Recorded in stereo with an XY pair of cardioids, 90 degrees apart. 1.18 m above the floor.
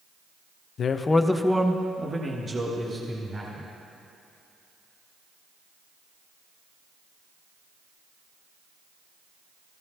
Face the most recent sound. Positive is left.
turn(degrees=-35)